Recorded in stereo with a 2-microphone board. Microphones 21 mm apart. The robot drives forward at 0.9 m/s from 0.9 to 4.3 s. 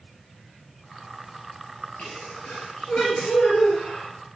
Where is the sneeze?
70° left (ahead or behind), 3 m; by 4.1 s 55° left (ahead or behind), 3.5 m.